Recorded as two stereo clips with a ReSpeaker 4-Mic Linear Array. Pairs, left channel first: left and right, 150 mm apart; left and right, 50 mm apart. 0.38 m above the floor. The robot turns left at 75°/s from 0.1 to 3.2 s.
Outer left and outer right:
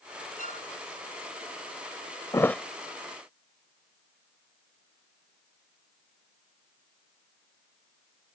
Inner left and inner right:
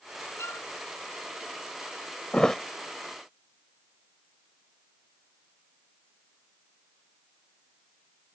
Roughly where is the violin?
Left.